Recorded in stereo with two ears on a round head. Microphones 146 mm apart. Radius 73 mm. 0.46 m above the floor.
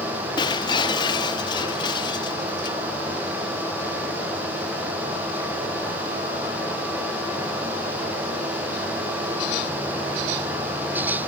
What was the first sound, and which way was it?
Breaking glass, 25° left (ahead or behind).